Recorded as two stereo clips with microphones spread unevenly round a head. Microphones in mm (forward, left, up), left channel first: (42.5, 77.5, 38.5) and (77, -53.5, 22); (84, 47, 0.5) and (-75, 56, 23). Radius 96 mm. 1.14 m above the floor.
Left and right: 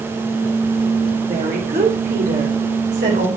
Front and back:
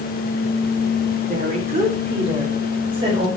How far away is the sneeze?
No sneeze in this recording.